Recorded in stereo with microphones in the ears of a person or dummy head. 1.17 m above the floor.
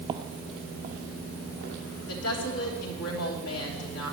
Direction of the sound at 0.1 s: 25° right (ahead or behind).